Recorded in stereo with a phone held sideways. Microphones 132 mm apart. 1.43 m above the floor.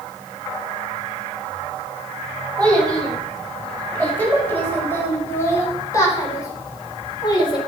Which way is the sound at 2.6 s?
10° left (ahead or behind).